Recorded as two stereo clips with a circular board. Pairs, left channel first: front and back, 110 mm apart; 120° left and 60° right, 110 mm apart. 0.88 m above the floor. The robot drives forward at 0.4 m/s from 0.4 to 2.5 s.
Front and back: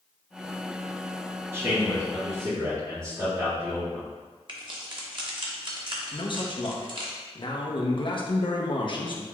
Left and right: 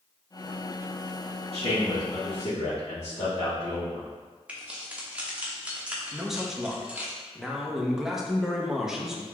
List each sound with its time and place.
1.5 s a man speaking: 115° left, 1.5 m; by 4.1 s 130° left, 1.7 m
4.5 s keys jangling: 140° right, 0.9 m
6.1 s a man speaking: 25° left, 0.7 m